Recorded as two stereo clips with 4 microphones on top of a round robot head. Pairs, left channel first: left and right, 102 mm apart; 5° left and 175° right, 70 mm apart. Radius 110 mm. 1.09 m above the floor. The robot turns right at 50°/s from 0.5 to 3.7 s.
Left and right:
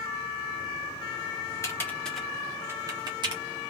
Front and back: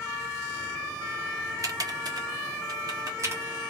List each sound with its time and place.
1.6 s typing on a keyboard: 150° left, 1.3 m; by 3.4 s 120° right, 1.3 m